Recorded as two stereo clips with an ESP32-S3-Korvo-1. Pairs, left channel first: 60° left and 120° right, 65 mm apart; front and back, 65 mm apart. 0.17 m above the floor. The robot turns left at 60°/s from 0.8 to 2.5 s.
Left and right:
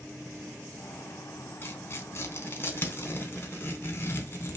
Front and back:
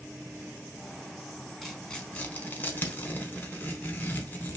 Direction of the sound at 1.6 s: 90° left.